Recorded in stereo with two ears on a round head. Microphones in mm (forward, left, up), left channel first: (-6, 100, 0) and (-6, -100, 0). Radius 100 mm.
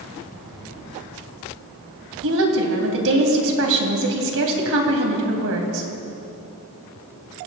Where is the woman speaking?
60° right (ahead or behind), 3 m.